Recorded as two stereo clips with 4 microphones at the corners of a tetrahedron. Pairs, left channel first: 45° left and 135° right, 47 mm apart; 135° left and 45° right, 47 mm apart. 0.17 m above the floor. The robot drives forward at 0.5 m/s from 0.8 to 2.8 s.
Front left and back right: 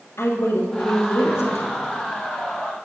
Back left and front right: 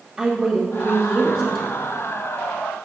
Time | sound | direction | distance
0.2 | a woman speaking | 15° left | 3 m